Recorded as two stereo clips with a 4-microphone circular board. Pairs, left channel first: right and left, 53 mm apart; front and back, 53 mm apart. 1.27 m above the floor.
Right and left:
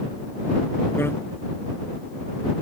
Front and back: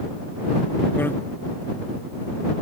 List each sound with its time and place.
1.0 s a bicycle bell: 50° right